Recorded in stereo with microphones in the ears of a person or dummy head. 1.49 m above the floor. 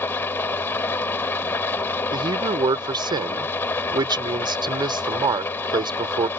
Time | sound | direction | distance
0.0 | an engine running | 10° left (ahead or behind) | ?
2.1 | a man speaking | 20° right (ahead or behind) | ?